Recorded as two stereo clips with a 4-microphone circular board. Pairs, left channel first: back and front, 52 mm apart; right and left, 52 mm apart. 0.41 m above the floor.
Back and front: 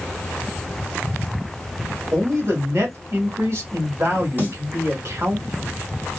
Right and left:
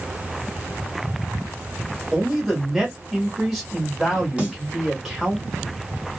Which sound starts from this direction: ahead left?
A snare drum, at 4.4 s.